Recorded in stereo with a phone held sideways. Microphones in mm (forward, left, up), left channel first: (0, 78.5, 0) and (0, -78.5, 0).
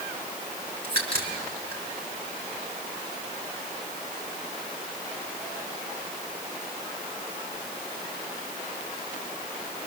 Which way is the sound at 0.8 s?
70° right (ahead or behind).